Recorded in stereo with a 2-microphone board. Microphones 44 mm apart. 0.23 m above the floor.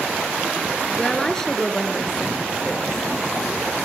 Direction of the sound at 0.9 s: 10° left (ahead or behind).